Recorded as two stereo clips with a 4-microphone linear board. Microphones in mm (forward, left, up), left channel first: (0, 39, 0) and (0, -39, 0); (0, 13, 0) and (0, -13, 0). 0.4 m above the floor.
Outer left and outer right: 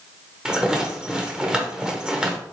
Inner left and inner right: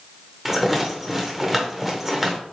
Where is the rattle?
10° right (ahead or behind), 0.8 m.